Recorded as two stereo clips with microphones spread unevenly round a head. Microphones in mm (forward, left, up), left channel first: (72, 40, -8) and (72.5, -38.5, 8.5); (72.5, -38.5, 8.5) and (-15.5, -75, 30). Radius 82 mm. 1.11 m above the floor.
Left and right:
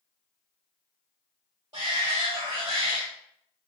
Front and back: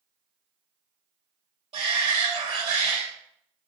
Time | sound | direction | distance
1.7 | a shout | 155° right | 1.0 m